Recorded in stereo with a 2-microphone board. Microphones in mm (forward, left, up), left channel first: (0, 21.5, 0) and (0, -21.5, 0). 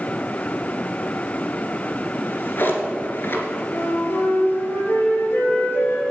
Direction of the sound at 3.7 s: 75° left (ahead or behind).